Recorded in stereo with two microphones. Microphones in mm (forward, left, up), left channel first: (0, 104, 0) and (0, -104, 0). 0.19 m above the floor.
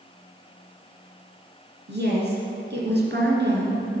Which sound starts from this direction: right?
A woman speaking, at 1.9 s.